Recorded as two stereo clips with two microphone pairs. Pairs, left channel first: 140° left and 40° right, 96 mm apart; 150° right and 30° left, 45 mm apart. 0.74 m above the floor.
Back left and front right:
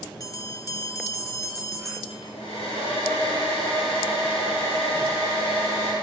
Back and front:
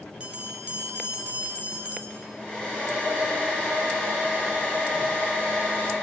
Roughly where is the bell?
Left.